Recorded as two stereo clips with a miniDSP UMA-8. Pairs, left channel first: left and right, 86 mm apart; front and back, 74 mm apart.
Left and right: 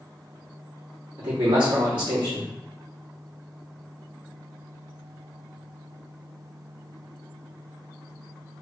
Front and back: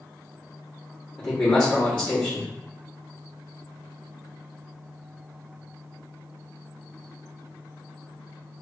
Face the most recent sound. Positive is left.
turn(degrees=-70)